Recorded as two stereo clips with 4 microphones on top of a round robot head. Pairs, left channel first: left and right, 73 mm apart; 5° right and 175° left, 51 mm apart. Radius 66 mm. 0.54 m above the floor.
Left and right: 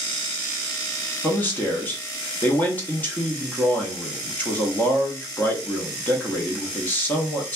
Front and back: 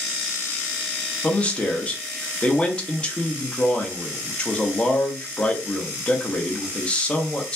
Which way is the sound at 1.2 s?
45° left.